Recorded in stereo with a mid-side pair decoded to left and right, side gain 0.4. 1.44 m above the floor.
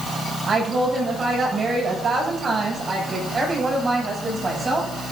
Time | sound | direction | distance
0.5 | a woman speaking | 50° right | 7.5 m